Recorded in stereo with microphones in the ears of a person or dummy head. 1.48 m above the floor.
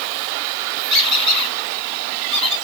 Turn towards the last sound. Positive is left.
turn(degrees=-65)  # may be behind; listen again after turning